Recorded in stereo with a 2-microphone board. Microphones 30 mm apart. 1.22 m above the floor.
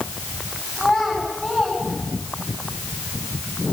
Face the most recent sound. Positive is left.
turn(degrees=10)  # may be behind; listen again after turning